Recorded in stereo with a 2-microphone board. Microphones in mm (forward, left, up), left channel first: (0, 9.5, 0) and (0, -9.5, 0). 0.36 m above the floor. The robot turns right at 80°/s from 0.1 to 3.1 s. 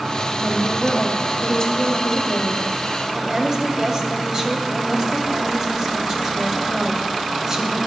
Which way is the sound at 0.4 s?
5° right.